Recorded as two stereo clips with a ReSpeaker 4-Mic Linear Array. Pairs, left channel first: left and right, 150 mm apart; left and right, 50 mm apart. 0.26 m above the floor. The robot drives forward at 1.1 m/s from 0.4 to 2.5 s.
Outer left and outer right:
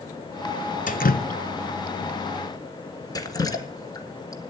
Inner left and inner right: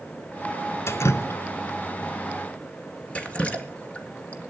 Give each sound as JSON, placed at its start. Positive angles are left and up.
{"t": 0.9, "sound": "dripping", "side_deg": 60, "distance_m": 0.8}